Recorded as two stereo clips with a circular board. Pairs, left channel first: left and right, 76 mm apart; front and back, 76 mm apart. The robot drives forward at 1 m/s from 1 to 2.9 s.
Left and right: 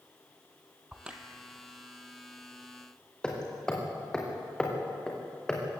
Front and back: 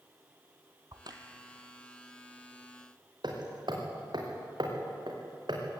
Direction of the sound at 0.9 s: 165° right.